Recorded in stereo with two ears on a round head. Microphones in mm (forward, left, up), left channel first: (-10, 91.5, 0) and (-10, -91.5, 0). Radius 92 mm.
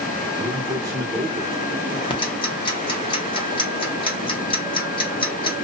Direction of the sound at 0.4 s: 15° right (ahead or behind).